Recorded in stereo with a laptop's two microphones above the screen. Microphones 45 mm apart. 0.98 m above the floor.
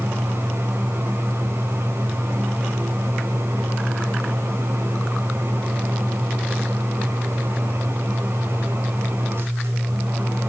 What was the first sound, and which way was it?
A fan, 60° right (ahead or behind).